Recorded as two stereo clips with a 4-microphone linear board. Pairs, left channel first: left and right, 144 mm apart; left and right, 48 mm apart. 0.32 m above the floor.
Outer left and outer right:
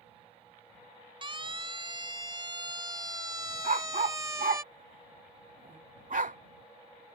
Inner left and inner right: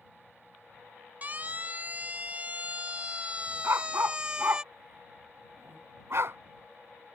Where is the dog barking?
70° right (ahead or behind).